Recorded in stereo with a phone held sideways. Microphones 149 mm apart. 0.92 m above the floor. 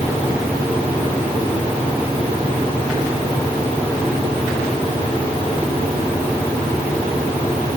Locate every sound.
Only background noise.